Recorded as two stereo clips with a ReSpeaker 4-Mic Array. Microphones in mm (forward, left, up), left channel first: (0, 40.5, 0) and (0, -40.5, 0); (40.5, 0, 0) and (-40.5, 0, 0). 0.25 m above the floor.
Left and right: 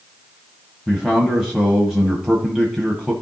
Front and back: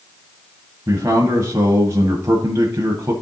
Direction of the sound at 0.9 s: 165° right.